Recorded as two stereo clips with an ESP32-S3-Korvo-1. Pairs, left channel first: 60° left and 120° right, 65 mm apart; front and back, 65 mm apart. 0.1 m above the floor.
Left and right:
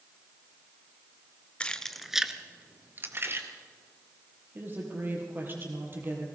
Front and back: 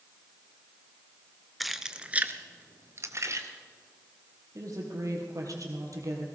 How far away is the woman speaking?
About 3.5 m.